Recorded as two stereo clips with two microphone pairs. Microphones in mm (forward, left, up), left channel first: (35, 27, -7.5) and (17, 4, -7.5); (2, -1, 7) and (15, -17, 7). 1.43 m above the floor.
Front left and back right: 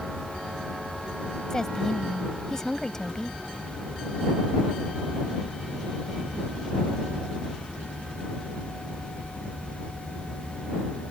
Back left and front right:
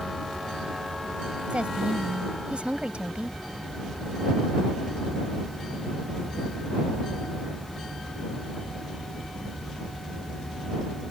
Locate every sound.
1.5 s a woman speaking: 20° right